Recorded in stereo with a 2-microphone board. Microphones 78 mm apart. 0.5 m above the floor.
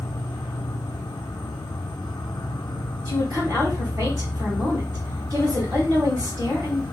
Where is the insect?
80° left, 0.8 m.